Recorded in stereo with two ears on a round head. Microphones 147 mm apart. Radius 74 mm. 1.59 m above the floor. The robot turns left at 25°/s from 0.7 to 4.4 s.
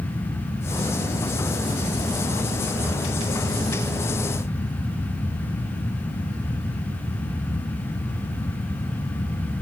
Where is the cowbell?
No cowbell in this recording.